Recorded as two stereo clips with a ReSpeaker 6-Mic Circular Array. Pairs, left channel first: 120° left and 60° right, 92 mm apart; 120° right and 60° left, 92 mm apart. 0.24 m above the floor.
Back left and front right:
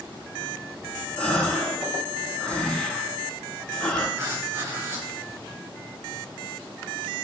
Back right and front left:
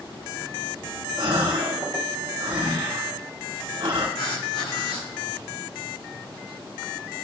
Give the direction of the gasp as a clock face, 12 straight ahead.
11 o'clock.